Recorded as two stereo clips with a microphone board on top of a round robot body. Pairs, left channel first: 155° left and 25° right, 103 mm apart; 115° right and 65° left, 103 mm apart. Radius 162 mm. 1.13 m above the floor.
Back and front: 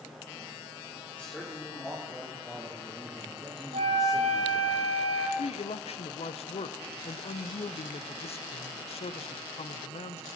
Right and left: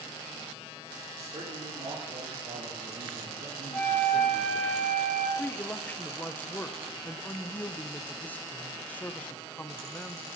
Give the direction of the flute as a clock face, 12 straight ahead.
1 o'clock.